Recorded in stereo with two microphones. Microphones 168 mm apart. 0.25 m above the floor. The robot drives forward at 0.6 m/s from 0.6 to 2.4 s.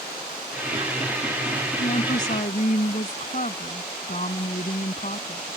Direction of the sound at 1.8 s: 55° left (ahead or behind).